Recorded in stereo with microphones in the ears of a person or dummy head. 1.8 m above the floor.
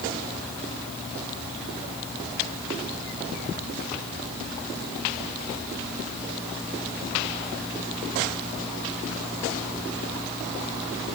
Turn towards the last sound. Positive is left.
No sound to turn to.